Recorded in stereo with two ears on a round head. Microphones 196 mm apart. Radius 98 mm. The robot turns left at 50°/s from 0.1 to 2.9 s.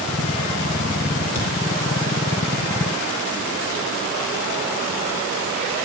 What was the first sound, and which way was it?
A thud, 30° left (ahead or behind).